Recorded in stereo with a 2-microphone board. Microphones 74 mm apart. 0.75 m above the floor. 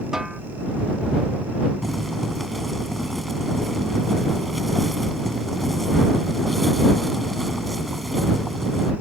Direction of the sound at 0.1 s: 10° right (ahead or behind).